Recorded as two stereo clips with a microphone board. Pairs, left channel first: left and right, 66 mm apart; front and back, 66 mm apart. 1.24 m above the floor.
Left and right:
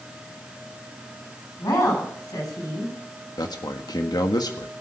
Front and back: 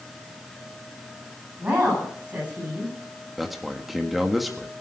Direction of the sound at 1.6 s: 110° left.